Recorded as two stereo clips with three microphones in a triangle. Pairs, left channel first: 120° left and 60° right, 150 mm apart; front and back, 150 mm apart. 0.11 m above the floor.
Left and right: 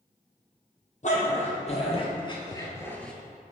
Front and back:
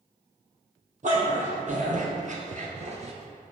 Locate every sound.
1.0 s a dog barking: 150° left, 1.8 m; by 3.1 s 155° right, 0.8 m